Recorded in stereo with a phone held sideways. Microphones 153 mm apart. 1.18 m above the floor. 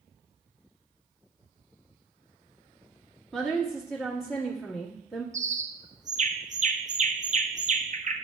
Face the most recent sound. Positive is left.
turn(degrees=-55)  # may be behind; listen again after turning